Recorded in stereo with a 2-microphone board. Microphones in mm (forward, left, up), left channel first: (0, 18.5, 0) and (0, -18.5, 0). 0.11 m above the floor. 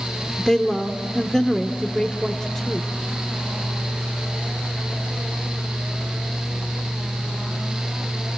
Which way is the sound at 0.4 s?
5° left (ahead or behind).